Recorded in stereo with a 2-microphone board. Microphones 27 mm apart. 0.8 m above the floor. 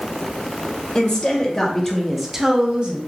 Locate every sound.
0.9 s a woman speaking: 30° left (ahead or behind), 1.0 m; by 3.0 s 45° right (ahead or behind), 0.6 m